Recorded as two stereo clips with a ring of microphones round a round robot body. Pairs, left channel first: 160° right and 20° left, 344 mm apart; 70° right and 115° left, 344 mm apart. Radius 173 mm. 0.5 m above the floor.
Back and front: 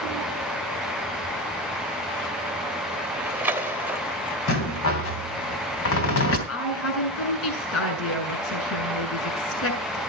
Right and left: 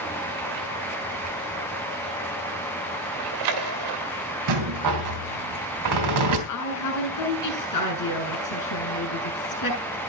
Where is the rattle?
150° left, 3 m.